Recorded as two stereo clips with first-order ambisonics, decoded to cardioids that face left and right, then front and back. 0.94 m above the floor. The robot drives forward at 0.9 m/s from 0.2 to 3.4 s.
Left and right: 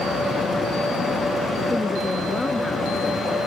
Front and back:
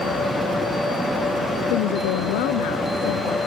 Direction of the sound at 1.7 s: 10° left.